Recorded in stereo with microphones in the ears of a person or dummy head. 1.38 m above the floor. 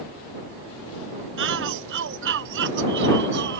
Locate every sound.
1.4 s a shout: 65° right (ahead or behind)